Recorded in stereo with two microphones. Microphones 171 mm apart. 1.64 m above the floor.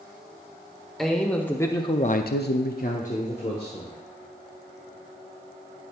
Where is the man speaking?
Centre (ahead or behind), 1.4 m; by 4.0 s 35° left (ahead or behind), 1.8 m.